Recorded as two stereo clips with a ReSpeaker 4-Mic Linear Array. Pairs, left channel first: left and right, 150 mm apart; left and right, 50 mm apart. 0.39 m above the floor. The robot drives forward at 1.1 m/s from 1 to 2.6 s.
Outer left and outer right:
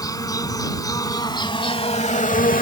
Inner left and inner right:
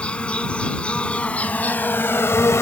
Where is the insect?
25° left (ahead or behind); by 2.6 s 65° left (ahead or behind).